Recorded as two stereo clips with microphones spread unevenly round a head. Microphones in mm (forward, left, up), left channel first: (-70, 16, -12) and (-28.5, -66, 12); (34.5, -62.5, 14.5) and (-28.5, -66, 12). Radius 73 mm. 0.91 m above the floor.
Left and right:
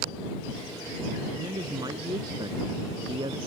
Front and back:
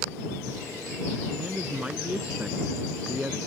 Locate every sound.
1.4 s a man speaking: 110° right; by 3.4 s 105° right